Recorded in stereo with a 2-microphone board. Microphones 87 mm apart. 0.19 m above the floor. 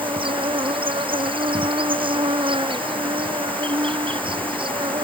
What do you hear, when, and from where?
0.0 s an insect: 75° right (ahead or behind)